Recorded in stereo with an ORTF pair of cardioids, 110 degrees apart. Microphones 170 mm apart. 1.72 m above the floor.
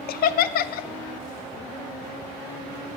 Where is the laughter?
65° left, 0.5 m.